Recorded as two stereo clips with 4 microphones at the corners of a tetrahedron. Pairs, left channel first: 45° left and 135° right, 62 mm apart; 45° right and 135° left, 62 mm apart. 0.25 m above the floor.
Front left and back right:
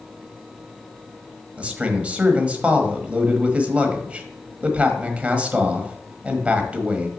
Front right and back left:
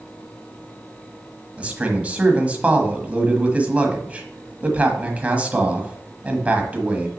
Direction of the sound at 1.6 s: Straight behind.